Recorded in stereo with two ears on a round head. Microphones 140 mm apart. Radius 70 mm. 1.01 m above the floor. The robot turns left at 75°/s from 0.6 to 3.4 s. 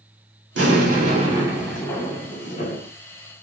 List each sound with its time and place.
0.6 s an explosion: 100° right, 2 m; by 2.9 s 90° left, 2 m